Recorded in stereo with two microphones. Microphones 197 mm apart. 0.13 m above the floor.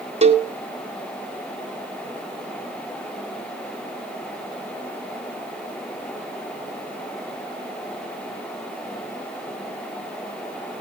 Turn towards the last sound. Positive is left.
turn(degrees=-35)  # may be behind; listen again after turning